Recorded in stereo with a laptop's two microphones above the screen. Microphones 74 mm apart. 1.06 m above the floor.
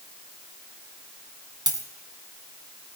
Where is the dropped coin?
70° right (ahead or behind), 2.5 m.